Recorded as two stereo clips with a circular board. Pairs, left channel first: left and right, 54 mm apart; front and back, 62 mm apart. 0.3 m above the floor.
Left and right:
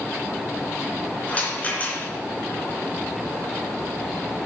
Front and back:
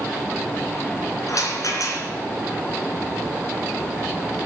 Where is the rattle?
25° left, 3 m.